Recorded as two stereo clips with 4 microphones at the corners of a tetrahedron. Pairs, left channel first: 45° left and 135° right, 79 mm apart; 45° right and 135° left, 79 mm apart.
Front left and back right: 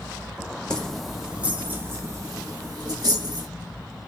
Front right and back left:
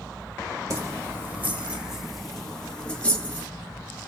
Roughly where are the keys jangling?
Behind left.